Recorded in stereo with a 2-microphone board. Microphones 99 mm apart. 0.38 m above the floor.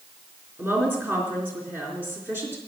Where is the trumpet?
I don't hear a trumpet.